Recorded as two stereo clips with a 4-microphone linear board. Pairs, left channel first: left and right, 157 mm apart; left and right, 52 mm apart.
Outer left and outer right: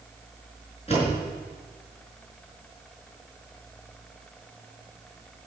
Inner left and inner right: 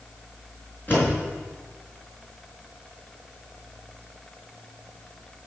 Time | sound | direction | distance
0.9 | a door slam | 40° left (ahead or behind) | 5 m